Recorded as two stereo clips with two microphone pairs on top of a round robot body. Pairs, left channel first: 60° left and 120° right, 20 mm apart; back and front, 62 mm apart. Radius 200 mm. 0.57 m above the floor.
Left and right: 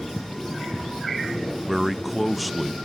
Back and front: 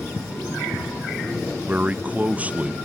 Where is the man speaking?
30° right, 0.6 m.